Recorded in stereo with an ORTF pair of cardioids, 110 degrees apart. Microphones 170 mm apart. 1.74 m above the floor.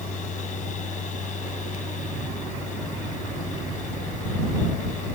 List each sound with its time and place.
0.0 s a fan: 45° left